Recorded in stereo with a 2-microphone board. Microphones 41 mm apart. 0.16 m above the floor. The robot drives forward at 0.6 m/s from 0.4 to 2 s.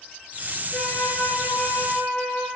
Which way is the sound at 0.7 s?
60° left (ahead or behind).